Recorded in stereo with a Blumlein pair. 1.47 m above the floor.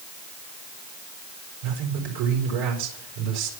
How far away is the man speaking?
About 4.5 m.